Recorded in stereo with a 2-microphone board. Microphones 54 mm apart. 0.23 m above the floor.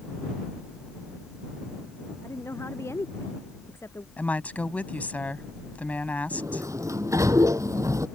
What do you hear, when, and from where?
2.2 s a woman speaking: 60° left (ahead or behind)
4.2 s a woman speaking: 30° left (ahead or behind)
6.3 s a sliding door: 80° right